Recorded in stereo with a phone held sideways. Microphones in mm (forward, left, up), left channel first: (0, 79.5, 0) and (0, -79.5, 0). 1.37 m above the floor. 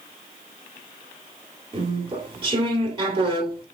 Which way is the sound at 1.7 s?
35° right (ahead or behind).